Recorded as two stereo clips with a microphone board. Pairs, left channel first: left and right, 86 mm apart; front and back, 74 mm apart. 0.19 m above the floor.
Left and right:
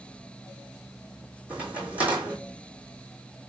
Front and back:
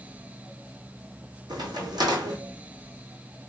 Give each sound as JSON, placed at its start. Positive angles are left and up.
{"t": 1.5, "sound": "a crack", "azimuth_deg": -165, "distance_m": 1.7}